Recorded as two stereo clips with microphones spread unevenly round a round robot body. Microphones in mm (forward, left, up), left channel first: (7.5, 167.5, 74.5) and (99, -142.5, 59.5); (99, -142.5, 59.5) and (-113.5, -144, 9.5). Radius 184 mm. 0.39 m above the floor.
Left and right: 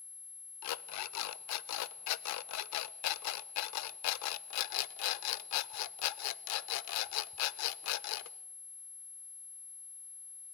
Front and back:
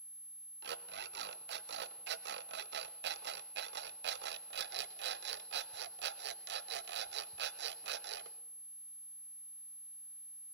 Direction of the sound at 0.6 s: 150° left.